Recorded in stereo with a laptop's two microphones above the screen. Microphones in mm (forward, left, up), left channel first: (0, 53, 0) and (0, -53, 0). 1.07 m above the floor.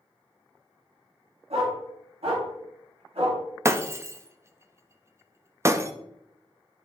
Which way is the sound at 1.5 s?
75° right (ahead or behind).